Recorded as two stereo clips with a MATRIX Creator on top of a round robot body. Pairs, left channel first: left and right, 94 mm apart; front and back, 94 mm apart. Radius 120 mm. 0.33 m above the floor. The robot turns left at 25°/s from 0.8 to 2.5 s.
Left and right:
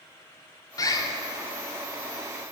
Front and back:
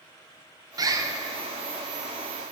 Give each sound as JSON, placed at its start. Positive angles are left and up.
{"t": 0.8, "sound": "a bird", "azimuth_deg": 135, "distance_m": 0.6}